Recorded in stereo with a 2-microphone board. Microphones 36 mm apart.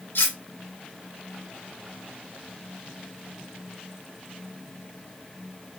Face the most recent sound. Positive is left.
turn(degrees=80)